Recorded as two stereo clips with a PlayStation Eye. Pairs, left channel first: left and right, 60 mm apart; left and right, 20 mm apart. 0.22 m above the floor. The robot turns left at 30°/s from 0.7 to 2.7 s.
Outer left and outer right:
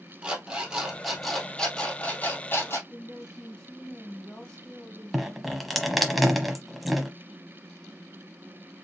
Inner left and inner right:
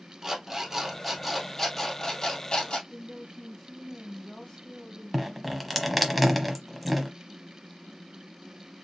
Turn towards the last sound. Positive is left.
turn(degrees=0)  # may be behind; listen again after turning